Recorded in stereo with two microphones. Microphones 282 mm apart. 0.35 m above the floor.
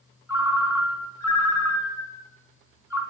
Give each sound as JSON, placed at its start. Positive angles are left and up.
{"t": 0.3, "sound": "a ringtone", "side_deg": 75, "distance_m": 1.5}